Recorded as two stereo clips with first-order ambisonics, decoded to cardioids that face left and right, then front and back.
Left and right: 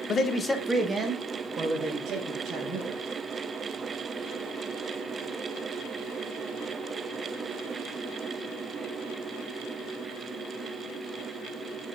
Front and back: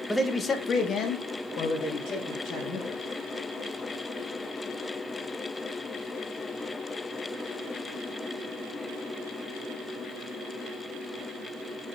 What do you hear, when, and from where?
0.1 s a man speaking: 85° left, 0.5 m; by 3.0 s 50° right, 1.5 m